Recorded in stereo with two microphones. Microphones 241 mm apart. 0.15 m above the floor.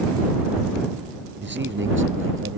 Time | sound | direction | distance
1.4 | a man speaking | 50° right (ahead or behind) | ?